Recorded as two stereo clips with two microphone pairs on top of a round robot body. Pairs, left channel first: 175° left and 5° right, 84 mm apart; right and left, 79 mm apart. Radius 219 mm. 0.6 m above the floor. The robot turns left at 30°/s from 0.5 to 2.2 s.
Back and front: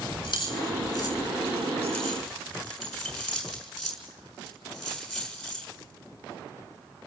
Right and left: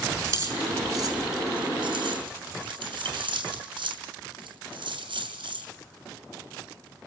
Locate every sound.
0.2 s keys jangling: 135° left, 7 m; by 5.7 s 85° left, 7 m